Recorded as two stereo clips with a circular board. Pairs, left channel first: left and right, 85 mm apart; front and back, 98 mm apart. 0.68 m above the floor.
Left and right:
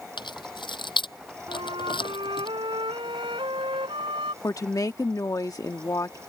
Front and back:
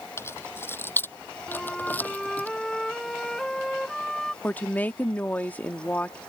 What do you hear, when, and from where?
0.2 s keys jangling: 65° left; by 2.5 s 75° left
1.5 s a flute: 85° right
4.4 s a woman speaking: 65° left